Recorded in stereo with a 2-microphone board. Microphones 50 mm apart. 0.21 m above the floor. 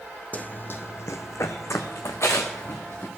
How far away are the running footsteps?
About 0.5 m.